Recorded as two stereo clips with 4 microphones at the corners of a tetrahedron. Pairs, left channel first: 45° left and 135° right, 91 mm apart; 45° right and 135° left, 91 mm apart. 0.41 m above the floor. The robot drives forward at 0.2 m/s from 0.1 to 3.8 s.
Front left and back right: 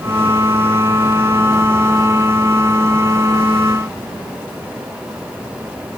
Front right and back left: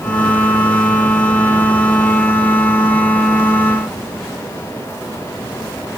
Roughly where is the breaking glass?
No breaking glass in this recording.